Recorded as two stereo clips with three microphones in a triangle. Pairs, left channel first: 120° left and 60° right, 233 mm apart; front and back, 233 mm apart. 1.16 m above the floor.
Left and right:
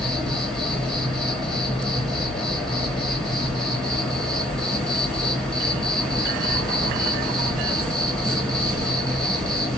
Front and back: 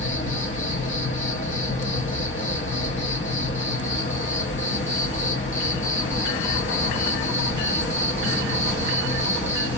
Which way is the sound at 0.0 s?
30° left.